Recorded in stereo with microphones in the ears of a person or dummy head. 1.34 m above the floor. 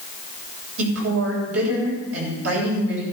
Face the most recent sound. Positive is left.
turn(degrees=-90)